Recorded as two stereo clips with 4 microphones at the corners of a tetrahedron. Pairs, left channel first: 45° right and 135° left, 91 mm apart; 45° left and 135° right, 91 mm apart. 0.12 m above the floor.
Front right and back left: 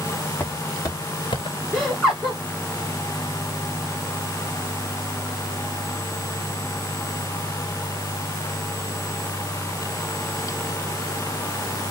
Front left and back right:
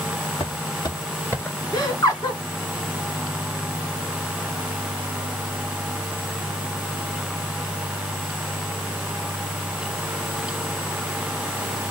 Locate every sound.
0.4 s footsteps: 25° left, 1.3 m; by 1.6 s 30° right, 1.0 m
1.7 s laughter: 30° left, 2 m